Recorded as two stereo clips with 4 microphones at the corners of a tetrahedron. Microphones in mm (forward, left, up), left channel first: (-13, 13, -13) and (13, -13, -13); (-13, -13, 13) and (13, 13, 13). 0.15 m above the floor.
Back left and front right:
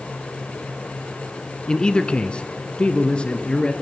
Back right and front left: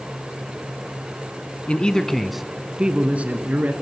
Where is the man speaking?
170° right, 1.3 m; by 3.7 s 75° left, 2.0 m.